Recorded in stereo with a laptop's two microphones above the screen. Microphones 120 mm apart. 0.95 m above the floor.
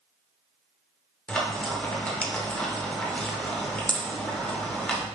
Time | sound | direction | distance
1.3 | frying | 10° left (ahead or behind) | 0.6 m